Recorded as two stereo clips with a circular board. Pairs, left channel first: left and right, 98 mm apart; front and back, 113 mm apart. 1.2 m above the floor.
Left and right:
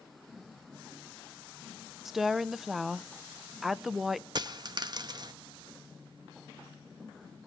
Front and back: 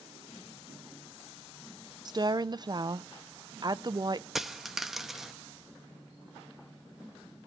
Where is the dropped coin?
95° right, 0.6 m.